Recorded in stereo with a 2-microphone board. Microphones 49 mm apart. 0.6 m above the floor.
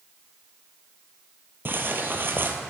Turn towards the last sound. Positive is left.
turn(degrees=-50)  # may be behind; listen again after turning